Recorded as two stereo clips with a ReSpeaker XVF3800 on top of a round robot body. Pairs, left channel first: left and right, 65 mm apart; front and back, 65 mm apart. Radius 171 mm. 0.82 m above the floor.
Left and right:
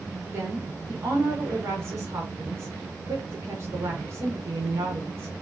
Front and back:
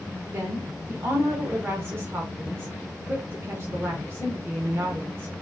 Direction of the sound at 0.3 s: 130° right.